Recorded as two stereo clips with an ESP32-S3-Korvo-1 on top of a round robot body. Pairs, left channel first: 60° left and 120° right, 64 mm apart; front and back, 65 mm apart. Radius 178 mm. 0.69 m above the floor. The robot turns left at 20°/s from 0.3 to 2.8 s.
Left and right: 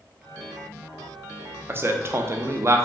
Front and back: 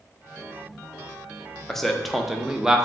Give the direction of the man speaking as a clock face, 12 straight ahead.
3 o'clock.